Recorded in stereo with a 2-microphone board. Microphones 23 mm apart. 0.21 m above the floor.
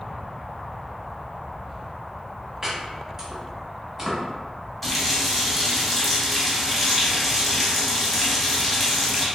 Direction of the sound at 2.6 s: 20° right (ahead or behind).